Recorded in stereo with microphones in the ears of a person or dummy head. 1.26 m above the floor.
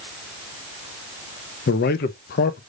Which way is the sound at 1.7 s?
45° left (ahead or behind).